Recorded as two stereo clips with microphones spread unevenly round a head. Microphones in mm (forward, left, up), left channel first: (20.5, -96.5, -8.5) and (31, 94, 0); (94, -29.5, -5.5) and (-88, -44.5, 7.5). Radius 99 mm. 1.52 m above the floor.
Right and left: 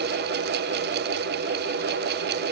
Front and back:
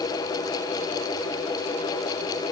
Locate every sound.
Only background noise.